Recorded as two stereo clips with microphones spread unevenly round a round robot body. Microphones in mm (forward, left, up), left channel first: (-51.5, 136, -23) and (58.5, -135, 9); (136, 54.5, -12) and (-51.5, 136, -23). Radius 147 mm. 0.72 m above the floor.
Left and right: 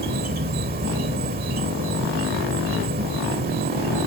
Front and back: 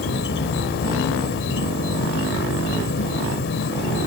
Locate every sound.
0.0 s an insect: 5° right